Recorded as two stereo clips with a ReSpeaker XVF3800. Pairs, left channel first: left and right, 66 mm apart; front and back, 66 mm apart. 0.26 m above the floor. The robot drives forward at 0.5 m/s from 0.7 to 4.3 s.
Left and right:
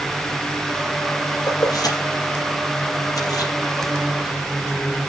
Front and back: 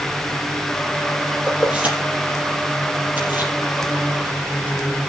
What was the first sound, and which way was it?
Keys jangling, 105° left.